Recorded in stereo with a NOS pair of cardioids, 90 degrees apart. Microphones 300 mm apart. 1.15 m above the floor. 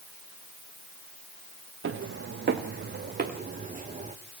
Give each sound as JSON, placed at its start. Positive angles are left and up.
{"t": 1.8, "sound": "footsteps", "azimuth_deg": -45, "distance_m": 4.0}